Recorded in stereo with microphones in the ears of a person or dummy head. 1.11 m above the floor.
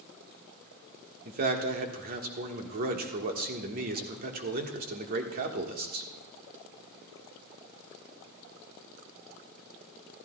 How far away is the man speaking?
About 1.3 m.